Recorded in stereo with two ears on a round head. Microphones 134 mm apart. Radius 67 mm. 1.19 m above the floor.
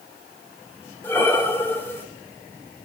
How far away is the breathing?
About 0.5 m.